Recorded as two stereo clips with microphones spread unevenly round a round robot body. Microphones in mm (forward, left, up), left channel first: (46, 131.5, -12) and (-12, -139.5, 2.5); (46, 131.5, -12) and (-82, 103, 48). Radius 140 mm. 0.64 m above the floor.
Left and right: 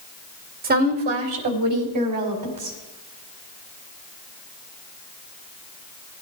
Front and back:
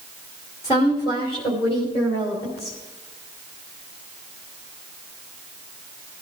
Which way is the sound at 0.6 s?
40° right.